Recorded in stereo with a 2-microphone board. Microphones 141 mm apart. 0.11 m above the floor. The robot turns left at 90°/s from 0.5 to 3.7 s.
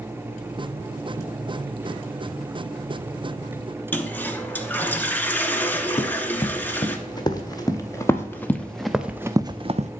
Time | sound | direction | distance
3.9 | a toilet flushing | 15° left (ahead or behind) | 0.9 m
6.0 | running footsteps | 35° left (ahead or behind) | 2.0 m